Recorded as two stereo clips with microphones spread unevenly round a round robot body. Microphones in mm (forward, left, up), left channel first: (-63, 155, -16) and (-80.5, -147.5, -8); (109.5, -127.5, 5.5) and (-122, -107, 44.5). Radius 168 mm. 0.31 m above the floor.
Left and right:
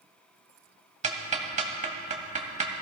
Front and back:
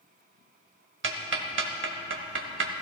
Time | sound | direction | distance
1.0 | ticking | 155° right | 1.2 m